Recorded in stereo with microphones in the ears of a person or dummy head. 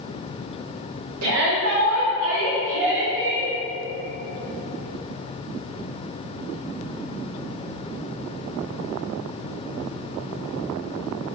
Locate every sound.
1.2 s a shout: 85° right, 1.7 m; by 3.5 s 50° right (ahead or behind), 2.5 m